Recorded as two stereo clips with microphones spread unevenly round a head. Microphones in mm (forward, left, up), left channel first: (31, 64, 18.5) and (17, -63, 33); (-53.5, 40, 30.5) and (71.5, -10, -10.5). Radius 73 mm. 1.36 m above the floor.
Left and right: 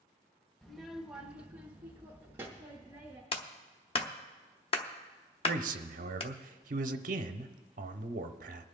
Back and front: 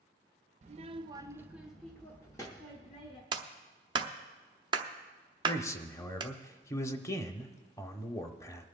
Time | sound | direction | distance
0.6 | a child speaking | 10° right | 0.7 m
3.3 | a clap | 35° left | 1.0 m
5.5 | a man speaking | 125° right | 0.8 m